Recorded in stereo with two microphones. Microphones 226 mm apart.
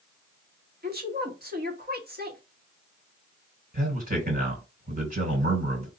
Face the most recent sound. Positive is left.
turn(degrees=-40)  # may be behind; listen again after turning